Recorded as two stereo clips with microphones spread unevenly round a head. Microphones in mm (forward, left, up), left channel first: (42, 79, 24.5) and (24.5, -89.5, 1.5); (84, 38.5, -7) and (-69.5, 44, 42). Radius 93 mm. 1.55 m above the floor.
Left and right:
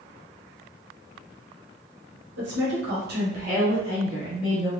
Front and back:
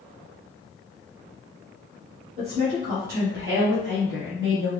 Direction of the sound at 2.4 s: 120° right.